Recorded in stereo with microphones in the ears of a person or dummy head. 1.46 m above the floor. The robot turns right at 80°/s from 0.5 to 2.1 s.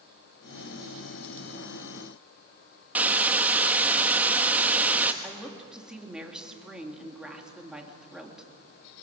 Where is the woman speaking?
5° right (ahead or behind), 3 m.